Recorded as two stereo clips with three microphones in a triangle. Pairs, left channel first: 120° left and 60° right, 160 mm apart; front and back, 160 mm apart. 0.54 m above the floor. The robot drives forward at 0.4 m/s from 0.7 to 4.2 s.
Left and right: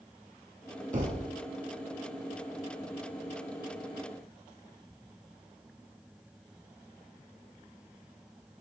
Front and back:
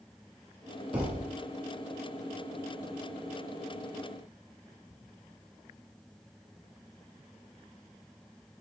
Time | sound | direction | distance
0.9 | a thud | 95° right | 2.0 m